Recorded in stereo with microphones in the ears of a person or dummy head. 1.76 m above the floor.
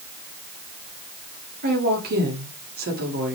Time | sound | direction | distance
1.6 | a woman speaking | 45° right (ahead or behind) | 2.5 m